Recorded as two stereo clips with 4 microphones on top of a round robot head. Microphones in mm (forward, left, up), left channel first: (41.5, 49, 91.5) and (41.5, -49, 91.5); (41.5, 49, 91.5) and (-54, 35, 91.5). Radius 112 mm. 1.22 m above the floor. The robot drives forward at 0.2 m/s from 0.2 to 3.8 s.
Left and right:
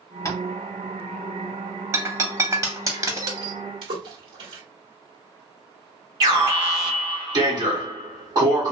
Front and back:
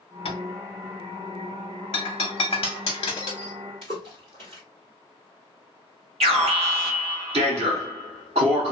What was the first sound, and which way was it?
Tapping, 30° left.